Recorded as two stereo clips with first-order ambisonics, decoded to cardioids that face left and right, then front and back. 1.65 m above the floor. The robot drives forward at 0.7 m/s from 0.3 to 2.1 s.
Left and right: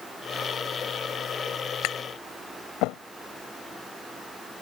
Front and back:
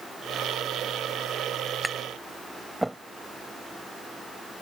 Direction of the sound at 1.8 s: 90° left.